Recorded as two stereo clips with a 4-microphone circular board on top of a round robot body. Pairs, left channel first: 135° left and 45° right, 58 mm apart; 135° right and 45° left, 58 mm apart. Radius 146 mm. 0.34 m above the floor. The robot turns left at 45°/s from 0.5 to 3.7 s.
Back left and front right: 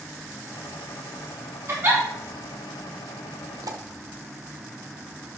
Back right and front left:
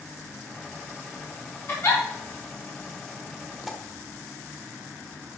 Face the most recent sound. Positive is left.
turn(degrees=-40)